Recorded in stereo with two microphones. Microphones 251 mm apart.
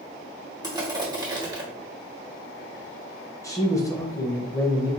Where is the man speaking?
10° left (ahead or behind), 1.0 m.